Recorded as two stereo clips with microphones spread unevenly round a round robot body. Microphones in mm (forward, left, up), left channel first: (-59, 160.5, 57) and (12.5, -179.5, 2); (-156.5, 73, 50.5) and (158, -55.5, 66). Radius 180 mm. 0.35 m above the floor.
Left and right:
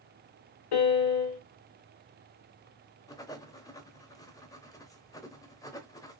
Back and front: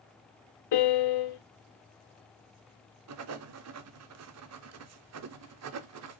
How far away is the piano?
About 1.0 m.